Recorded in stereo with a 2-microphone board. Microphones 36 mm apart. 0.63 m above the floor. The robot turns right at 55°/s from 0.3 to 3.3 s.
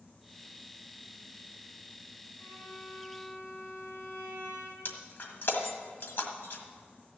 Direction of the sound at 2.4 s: 75° left.